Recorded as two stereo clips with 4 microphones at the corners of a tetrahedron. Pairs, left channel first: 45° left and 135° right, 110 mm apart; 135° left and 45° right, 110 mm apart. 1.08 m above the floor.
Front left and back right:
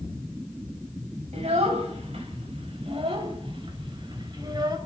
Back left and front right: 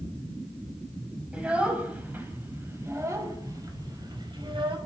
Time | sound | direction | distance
1.3 | a child speaking | 125° right | 6 m